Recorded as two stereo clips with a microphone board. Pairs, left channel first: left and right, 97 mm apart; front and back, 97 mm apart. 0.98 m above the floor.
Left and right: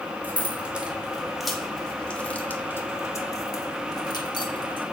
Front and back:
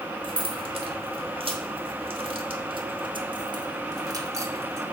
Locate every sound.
0.2 s keys jangling: 160° right, 1.9 m; by 4.8 s 120° left, 1.8 m